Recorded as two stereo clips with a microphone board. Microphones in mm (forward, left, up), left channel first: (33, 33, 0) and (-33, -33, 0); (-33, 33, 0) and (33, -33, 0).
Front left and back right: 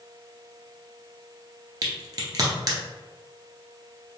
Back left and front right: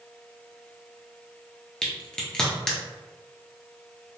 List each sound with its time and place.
1.8 s a crack: 150° right, 0.9 m